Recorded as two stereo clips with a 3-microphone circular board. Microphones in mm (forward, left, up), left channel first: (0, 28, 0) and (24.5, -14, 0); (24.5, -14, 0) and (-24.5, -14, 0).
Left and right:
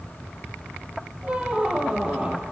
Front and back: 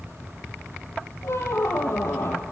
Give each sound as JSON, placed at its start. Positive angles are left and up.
{"t": 1.2, "sound": "a squeak", "azimuth_deg": 5, "distance_m": 1.3}